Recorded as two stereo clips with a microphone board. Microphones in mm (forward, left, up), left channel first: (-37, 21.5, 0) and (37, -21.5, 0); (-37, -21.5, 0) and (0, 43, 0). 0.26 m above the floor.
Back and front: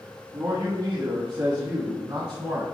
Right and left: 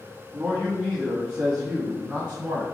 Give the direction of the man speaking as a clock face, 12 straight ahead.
1 o'clock.